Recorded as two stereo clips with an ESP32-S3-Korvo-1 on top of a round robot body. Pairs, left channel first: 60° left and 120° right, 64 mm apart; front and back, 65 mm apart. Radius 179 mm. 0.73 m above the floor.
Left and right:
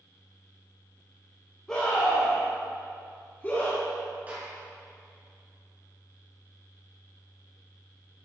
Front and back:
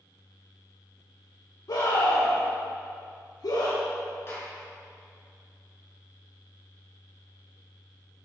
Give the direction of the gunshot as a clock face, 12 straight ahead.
2 o'clock.